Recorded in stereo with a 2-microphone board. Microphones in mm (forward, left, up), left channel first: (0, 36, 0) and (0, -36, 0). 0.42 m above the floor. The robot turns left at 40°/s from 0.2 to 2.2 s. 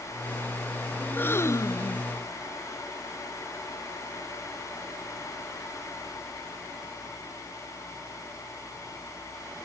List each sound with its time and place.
1.0 s a gasp: 160° left; by 2.1 s 120° left